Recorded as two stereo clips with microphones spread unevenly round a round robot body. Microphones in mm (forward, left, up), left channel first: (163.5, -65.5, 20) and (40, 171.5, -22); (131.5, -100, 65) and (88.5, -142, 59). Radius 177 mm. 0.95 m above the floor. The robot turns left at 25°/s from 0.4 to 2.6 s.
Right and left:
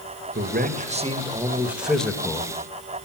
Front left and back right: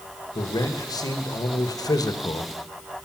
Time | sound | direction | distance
0.3 | a man speaking | 70° left | 1.2 m